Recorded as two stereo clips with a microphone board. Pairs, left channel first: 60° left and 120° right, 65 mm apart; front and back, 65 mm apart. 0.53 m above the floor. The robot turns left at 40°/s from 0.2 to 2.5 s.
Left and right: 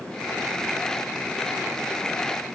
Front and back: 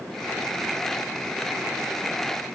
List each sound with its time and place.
Only background noise.